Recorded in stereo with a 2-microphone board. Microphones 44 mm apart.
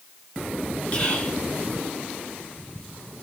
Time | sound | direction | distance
0.9 | whispering | 25° left (ahead or behind) | 1.2 m